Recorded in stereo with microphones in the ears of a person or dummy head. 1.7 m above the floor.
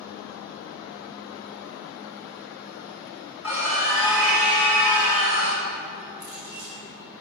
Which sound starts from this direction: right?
A clink, at 6.2 s.